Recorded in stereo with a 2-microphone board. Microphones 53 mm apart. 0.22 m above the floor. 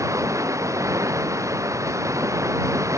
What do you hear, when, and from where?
0.0 s running water: 75° right (ahead or behind)